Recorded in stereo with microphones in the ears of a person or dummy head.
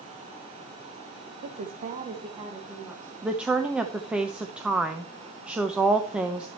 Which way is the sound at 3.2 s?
5° right (ahead or behind).